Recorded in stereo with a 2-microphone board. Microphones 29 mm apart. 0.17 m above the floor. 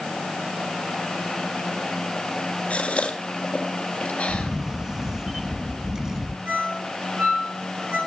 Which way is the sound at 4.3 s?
20° right (ahead or behind).